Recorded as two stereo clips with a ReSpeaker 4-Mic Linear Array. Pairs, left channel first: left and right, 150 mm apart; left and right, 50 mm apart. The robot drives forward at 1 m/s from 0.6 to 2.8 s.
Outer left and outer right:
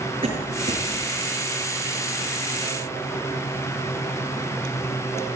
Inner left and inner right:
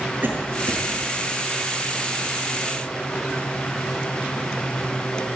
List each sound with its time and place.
0.2 s a cough: 40° right (ahead or behind), 7.5 m